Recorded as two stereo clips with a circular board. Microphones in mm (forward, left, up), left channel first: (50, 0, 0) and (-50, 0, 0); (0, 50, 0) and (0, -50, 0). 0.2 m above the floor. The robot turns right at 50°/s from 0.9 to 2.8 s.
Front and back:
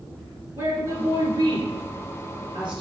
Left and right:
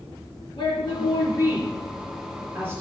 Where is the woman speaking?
115° left, 3.5 m; by 2.8 s 150° right, 3.5 m.